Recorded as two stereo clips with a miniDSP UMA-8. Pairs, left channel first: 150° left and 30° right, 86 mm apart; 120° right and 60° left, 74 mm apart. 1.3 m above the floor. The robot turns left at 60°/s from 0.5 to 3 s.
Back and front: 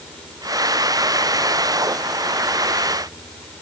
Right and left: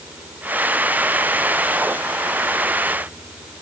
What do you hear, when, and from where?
Only background noise.